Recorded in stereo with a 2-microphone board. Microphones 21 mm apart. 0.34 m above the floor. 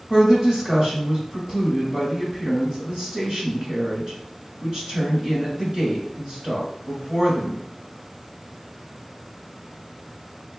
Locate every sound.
0.1 s a woman speaking: 35° right (ahead or behind), 1.8 m